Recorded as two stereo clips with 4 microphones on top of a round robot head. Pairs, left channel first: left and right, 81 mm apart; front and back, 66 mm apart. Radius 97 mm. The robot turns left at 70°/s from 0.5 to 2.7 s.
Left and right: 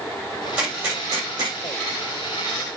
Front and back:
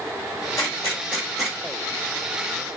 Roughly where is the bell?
I don't hear a bell.